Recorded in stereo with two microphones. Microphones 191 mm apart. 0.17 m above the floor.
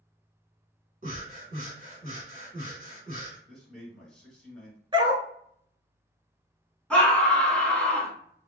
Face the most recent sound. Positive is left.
turn(degrees=5)  # may be behind; listen again after turning